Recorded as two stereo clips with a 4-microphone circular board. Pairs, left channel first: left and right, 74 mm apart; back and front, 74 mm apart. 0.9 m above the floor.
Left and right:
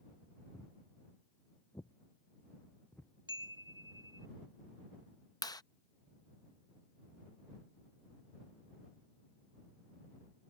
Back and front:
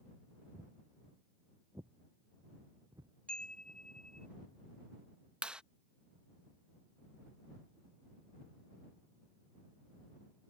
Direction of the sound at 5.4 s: 75° left.